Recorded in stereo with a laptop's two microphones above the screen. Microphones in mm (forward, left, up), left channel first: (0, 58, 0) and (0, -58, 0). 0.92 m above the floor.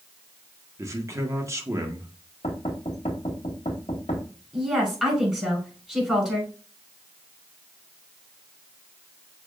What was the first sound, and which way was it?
A man speaking, 25° right (ahead or behind).